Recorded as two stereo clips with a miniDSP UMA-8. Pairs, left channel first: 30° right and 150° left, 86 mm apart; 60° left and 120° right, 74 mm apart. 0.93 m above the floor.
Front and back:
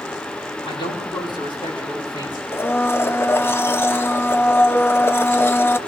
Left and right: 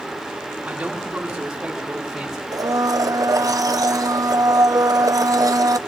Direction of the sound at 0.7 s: 45° right.